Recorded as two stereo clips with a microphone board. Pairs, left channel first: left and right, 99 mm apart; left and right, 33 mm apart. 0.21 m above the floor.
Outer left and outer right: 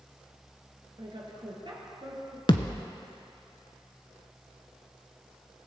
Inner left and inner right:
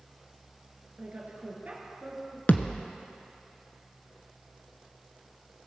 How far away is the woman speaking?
About 3 m.